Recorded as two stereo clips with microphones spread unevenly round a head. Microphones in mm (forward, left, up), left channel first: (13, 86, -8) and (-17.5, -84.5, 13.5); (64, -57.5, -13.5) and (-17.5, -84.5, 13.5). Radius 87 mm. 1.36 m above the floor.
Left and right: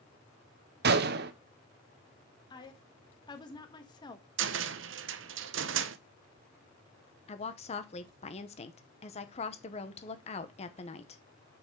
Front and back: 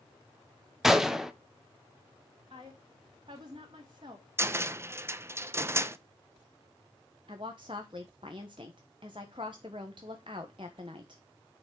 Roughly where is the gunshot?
Right.